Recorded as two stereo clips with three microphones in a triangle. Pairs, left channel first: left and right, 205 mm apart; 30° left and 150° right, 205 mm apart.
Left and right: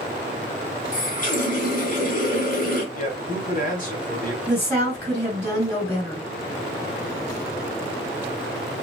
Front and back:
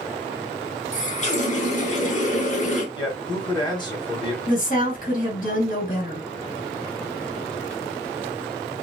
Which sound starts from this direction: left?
A man speaking, at 3.0 s.